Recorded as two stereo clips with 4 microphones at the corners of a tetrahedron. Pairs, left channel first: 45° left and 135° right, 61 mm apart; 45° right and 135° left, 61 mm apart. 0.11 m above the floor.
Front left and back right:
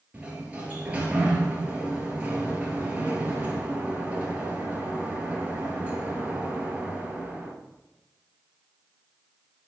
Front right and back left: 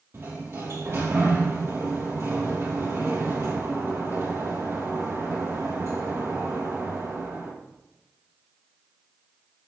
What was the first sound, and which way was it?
A sliding door, 160° left.